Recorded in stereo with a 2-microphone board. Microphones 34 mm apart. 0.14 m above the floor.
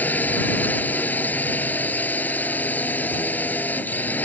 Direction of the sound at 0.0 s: 60° left (ahead or behind).